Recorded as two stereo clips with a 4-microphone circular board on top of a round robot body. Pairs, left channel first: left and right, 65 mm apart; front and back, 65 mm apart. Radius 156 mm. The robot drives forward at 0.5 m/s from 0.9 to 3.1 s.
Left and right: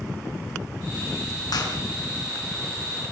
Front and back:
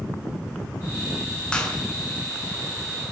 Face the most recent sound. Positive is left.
turn(degrees=85)